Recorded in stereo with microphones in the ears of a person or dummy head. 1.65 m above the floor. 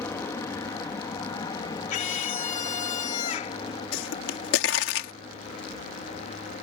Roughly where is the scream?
Left.